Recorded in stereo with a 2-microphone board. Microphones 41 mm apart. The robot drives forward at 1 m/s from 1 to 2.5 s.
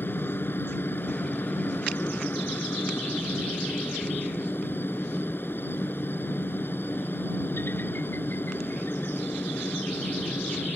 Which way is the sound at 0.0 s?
65° left (ahead or behind).